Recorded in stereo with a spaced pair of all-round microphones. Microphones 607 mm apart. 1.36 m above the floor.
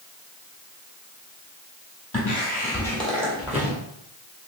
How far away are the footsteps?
About 1.4 m.